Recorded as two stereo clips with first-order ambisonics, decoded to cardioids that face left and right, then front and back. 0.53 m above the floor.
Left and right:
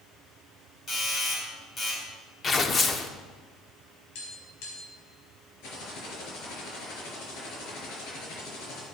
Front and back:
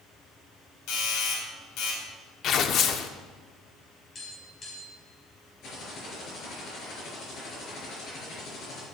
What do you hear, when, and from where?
0.9 s a doorbell: 25° left, 4 m
2.4 s tearing paper: 30° left, 0.8 m
4.2 s tapping: 75° left, 4.5 m
5.6 s typing on a keyboard: 55° left, 5 m